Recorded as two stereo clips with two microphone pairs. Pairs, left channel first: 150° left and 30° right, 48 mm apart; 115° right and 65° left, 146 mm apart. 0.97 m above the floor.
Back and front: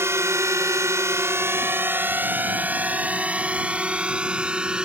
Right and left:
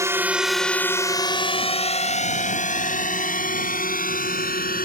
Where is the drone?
5° right; by 4.9 s 100° right.